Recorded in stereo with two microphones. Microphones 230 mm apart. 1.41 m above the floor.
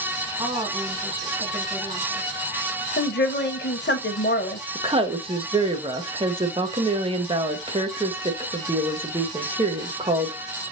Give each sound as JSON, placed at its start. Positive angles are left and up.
{"t": 0.4, "sound": "a woman speaking", "side_deg": -20, "distance_m": 1.5}
{"t": 3.0, "sound": "a woman speaking", "side_deg": 50, "distance_m": 0.7}
{"t": 4.8, "sound": "a woman speaking", "side_deg": -25, "distance_m": 0.8}